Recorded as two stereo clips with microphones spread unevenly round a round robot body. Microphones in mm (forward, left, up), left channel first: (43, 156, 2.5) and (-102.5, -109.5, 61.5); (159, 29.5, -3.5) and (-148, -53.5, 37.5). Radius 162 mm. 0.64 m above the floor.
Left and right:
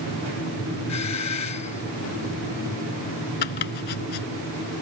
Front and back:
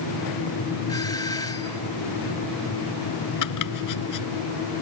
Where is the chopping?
55° left.